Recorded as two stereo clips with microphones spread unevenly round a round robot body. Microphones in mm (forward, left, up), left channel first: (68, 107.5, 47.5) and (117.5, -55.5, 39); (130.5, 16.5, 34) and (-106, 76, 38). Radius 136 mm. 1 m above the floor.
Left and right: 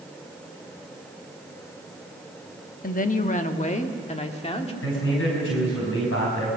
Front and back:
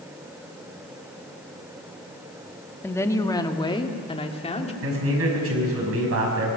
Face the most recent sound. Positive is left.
turn(degrees=135)